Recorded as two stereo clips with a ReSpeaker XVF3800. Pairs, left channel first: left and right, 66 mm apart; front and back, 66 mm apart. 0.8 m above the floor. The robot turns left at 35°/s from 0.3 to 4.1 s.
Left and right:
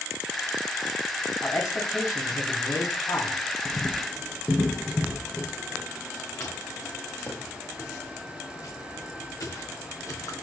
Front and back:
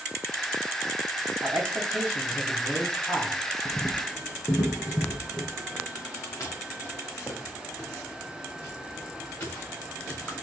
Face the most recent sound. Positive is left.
turn(degrees=60)